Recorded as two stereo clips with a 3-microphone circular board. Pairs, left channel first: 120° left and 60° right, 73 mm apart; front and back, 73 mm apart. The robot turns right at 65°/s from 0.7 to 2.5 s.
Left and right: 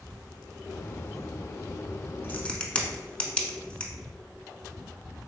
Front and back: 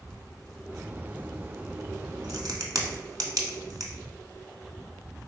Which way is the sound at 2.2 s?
175° left.